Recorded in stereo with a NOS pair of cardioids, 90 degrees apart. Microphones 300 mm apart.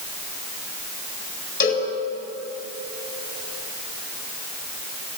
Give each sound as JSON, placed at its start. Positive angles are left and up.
{"t": 1.6, "sound": "a cowbell", "azimuth_deg": 40, "distance_m": 8.0}